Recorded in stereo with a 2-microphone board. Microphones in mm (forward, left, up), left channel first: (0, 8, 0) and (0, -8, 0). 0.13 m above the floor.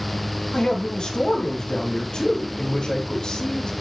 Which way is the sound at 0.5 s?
75° left (ahead or behind).